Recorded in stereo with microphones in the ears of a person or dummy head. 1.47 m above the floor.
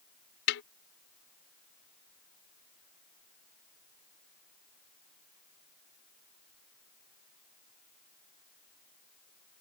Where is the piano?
No piano in this recording.